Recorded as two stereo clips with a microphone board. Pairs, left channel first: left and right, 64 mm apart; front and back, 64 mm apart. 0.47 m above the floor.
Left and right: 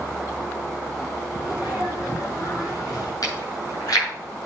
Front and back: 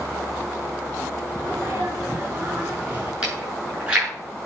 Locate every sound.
1.4 s a sneeze: 115° left, 7.5 m
3.2 s chewing: 105° left, 7.5 m